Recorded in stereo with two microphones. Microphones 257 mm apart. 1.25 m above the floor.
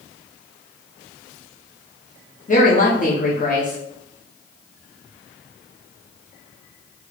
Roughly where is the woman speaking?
Left.